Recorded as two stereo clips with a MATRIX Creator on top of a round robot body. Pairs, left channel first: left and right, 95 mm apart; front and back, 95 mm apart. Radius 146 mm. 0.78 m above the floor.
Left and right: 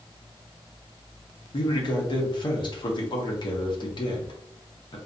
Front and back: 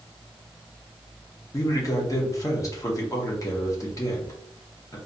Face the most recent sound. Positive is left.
turn(degrees=55)